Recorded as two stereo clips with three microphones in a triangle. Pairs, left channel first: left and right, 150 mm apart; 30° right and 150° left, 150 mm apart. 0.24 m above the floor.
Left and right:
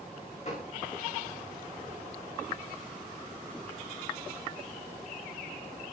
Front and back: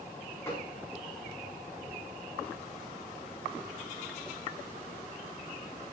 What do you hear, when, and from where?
0.5 s a gunshot: 45° left, 8 m